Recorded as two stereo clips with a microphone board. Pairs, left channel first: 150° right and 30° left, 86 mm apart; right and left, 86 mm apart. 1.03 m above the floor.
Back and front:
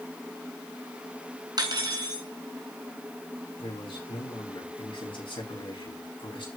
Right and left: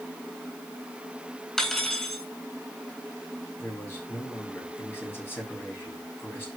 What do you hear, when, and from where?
1.6 s cutlery clinking: 5° right, 3 m
3.6 s a man speaking: 155° right, 6.5 m